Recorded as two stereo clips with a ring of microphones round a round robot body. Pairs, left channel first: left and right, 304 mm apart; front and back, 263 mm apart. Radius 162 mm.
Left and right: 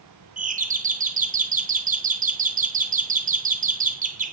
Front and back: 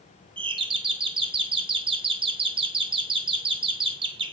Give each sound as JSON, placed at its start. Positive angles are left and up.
{"t": 0.4, "sound": "a doorbell", "azimuth_deg": -125, "distance_m": 1.1}